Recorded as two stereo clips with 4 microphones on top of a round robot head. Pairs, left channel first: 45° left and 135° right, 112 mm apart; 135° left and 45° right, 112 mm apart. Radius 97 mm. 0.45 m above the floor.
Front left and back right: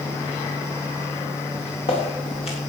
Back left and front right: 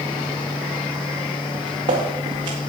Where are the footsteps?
10° left, 4 m; by 2.6 s 5° left, 5 m.